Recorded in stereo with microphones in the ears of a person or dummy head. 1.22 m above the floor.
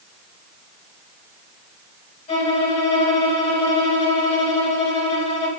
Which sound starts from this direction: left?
A violin, at 2.3 s.